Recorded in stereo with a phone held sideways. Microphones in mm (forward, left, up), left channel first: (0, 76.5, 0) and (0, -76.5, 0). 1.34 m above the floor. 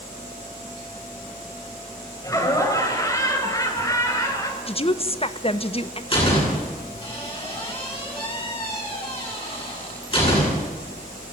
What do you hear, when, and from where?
2.2 s laughter: 20° left (ahead or behind), 6 m
4.7 s a woman speaking: 40° left (ahead or behind), 1.2 m
6.1 s a door slam: 40° left (ahead or behind), 9.5 m